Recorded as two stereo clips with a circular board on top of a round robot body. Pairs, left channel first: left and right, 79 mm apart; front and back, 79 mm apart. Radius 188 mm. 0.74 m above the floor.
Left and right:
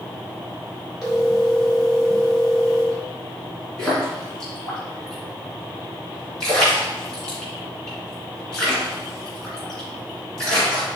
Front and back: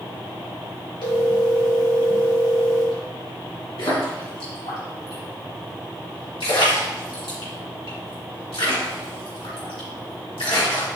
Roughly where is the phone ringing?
Ahead.